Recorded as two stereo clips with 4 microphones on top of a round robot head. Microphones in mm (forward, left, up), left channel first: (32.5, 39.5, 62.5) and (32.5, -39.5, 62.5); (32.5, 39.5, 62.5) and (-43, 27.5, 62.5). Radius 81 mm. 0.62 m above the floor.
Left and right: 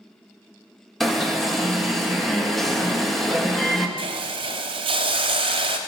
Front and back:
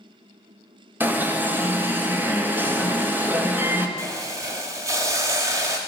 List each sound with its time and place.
1.0 s an alarm: 175° left, 1.7 m
4.0 s a hiss: 110° right, 0.9 m